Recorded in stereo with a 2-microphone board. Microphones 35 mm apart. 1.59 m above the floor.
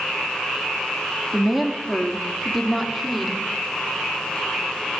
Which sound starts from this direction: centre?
A woman speaking, at 1.3 s.